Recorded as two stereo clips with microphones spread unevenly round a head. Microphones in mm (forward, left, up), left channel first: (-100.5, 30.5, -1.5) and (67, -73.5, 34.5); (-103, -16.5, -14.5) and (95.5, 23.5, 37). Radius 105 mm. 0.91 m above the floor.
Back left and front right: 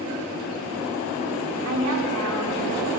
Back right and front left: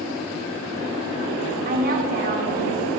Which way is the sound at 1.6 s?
40° right.